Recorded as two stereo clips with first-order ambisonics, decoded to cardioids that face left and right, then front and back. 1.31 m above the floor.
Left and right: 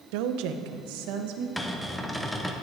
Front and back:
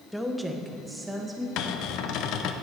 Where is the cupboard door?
5° left, 0.7 m.